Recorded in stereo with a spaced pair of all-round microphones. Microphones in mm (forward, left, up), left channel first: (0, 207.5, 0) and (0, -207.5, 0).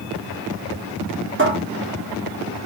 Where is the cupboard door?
30° right (ahead or behind), 3 m.